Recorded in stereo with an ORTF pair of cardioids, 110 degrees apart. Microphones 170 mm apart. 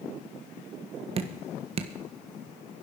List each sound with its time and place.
1.2 s dripping: 35° right, 1.6 m